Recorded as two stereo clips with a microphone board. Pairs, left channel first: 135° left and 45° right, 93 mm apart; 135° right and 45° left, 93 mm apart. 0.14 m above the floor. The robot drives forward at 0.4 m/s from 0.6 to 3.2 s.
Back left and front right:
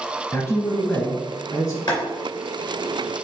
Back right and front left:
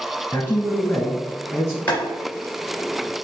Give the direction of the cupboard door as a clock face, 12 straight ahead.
I don't hear a cupboard door.